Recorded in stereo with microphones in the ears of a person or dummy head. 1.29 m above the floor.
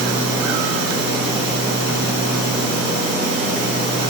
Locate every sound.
Only background noise.